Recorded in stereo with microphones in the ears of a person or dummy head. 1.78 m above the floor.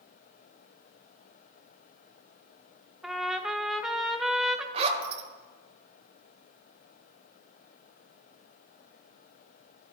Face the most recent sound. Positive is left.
turn(degrees=-35)  # may be behind; listen again after turning